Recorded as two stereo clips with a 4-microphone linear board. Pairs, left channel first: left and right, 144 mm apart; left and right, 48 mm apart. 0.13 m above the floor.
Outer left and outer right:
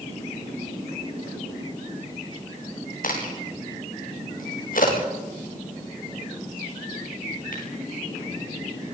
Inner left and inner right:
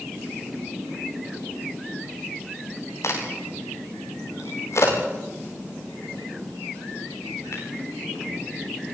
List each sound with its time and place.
3.0 s a crack: 70° left (ahead or behind), 9.5 m